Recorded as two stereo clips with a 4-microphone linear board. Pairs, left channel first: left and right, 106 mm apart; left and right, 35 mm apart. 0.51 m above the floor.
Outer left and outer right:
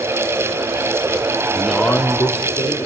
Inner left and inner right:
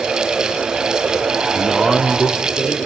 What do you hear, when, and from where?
1.5 s a man speaking: 15° right (ahead or behind), 0.8 m; by 2.8 s 55° left (ahead or behind), 1.5 m